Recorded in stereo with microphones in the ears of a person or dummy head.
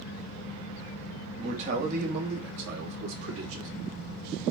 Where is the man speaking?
30° right (ahead or behind), 1.8 m; by 3.7 s 80° right, 1.9 m.